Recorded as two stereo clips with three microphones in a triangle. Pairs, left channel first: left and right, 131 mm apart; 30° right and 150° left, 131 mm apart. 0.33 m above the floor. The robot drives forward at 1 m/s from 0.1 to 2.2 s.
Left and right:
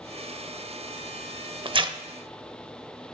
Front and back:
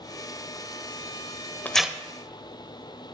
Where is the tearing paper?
100° right, 0.5 m; by 2.0 s 135° right, 0.6 m.